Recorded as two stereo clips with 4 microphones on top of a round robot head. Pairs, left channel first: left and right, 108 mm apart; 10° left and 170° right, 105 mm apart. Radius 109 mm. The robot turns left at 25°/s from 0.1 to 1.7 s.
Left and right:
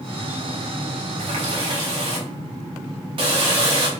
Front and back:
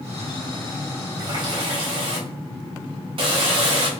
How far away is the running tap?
About 0.7 m.